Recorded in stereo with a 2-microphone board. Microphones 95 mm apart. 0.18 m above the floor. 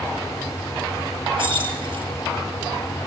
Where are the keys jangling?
55° right (ahead or behind), 2.5 m.